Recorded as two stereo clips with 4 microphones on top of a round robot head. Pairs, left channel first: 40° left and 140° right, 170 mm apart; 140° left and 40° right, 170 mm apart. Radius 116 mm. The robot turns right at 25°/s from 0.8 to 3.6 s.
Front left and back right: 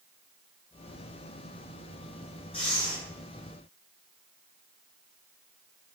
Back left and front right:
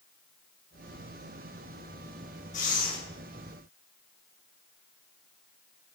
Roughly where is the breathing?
Left.